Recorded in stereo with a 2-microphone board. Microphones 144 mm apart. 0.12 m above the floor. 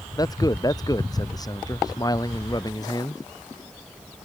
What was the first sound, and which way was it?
A man speaking, 25° left (ahead or behind).